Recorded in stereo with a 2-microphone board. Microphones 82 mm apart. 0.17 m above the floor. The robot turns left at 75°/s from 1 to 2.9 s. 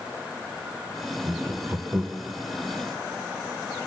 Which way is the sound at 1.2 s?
20° right (ahead or behind).